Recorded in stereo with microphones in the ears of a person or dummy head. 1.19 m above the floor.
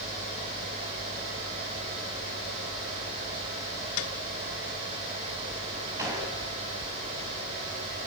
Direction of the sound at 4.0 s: 75° left (ahead or behind).